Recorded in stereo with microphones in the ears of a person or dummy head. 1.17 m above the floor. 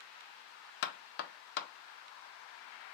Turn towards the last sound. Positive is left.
turn(degrees=50)  # may be behind; listen again after turning